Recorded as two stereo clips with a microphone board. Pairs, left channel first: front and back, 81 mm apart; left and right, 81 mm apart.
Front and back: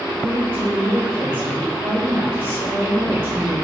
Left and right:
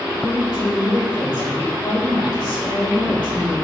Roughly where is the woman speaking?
Behind left.